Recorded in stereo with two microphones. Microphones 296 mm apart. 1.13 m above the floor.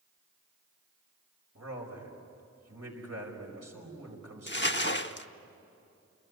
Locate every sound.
1.6 s a man speaking: 60° right (ahead or behind), 5 m
4.5 s crumpling: 40° left (ahead or behind), 0.8 m